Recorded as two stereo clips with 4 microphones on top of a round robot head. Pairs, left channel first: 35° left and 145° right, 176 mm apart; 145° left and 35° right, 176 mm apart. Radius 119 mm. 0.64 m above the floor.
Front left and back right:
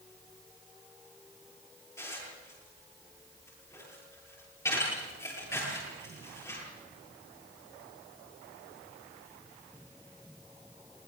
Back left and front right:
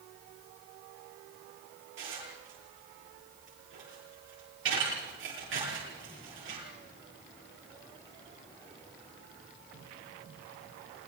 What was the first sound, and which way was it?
Dishes clattering, 40° right.